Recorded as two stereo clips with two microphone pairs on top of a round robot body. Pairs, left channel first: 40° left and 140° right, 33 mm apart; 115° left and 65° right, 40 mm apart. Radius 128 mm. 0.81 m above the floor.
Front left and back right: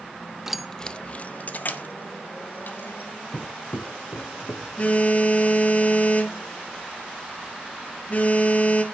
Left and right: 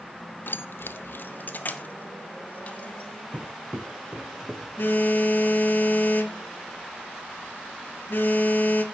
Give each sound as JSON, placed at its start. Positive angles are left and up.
{"t": 0.5, "sound": "keys jangling", "azimuth_deg": 135, "distance_m": 0.7}
{"t": 3.3, "sound": "footsteps", "azimuth_deg": -25, "distance_m": 2.0}
{"t": 4.8, "sound": "a phone buzzing", "azimuth_deg": 80, "distance_m": 2.0}